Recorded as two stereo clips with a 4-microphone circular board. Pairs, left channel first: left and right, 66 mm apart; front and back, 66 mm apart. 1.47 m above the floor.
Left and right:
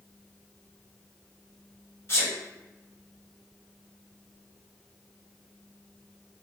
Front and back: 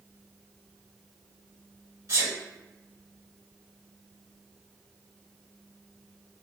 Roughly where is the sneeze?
Behind left.